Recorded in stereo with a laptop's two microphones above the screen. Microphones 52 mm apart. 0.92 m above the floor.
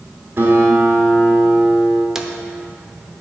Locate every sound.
0.4 s a guitar: 45° right (ahead or behind), 2.5 m
2.1 s a drawer: 5° right (ahead or behind), 0.7 m